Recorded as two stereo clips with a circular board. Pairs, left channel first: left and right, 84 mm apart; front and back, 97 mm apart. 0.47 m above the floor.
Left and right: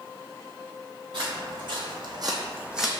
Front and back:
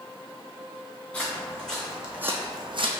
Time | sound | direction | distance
1.1 | footsteps | 75° right | 1.9 m